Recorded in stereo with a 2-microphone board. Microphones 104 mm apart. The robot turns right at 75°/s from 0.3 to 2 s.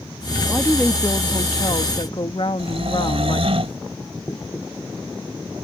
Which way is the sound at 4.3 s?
35° left (ahead or behind).